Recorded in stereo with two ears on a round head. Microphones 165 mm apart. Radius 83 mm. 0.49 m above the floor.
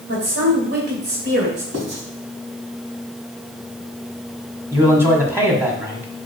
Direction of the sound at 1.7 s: 75° right (ahead or behind).